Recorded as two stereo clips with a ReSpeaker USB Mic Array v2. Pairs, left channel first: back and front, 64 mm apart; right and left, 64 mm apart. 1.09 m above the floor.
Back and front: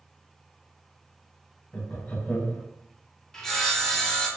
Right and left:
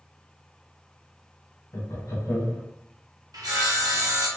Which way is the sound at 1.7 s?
115° right.